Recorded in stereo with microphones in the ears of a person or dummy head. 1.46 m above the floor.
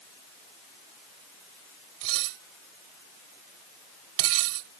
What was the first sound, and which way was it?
Dishes clattering, 75° right (ahead or behind).